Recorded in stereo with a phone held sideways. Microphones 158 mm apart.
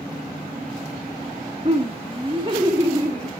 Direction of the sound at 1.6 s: 35° right (ahead or behind).